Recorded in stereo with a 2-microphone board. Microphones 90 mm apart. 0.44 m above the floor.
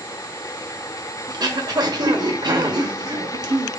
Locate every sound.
1.3 s throat clearing: 50° right (ahead or behind), 1.0 m